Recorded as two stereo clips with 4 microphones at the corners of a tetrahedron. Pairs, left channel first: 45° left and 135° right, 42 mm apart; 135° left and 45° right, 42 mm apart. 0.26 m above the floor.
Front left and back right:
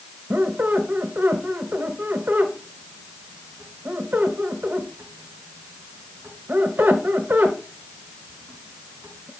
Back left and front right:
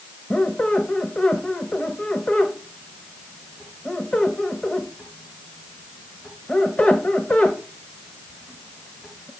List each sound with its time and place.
0.3 s a squeak: 175° right, 1.0 m